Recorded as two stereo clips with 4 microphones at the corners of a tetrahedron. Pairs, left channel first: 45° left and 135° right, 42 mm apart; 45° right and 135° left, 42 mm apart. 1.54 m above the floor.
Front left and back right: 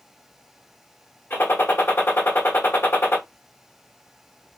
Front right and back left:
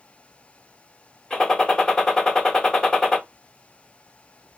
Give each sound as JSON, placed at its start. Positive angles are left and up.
{"t": 1.3, "sound": "a gunshot", "azimuth_deg": 30, "distance_m": 1.2}